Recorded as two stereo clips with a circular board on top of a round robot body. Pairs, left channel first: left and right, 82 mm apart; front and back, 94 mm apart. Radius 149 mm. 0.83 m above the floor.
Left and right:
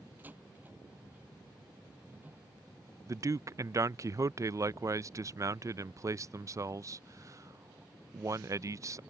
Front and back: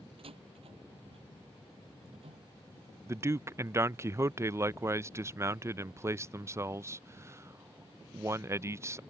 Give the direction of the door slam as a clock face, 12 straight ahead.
5 o'clock.